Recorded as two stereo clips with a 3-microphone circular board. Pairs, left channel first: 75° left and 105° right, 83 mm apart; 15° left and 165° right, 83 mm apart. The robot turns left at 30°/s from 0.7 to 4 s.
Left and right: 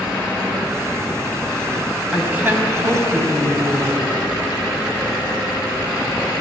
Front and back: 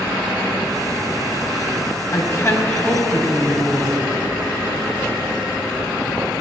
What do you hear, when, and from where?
2.1 s a woman speaking: 30° right, 3 m; by 4.0 s 85° right, 3 m